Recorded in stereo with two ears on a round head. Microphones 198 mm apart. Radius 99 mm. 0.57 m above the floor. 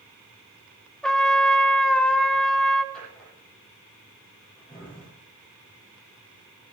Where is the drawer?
5° left (ahead or behind), 7.5 m.